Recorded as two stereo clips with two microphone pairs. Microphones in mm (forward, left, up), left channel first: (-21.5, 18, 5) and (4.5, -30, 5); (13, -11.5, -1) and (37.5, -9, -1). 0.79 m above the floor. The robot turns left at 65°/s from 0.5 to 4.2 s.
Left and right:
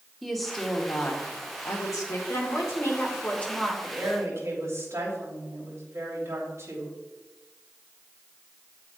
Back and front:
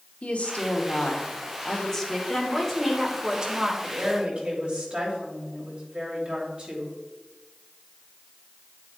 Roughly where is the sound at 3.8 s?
Ahead.